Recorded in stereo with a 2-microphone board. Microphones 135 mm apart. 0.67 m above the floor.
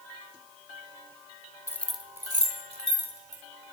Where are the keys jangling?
20° left (ahead or behind), 1.0 m; by 3.4 s 55° right (ahead or behind), 2.5 m.